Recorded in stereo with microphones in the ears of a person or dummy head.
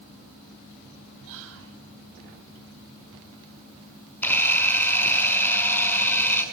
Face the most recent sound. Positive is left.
turn(degrees=10)  # may be behind; listen again after turning